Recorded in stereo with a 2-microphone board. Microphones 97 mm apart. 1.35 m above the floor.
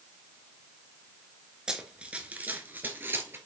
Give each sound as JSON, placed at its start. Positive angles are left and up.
{"t": 1.7, "sound": "running footsteps", "side_deg": -10, "distance_m": 1.3}